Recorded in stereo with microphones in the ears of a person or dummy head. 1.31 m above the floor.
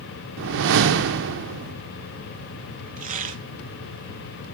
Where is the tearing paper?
40° right (ahead or behind), 1.3 m.